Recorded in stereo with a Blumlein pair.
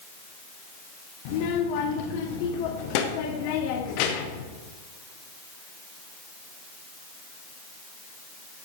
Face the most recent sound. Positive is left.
turn(degrees=45)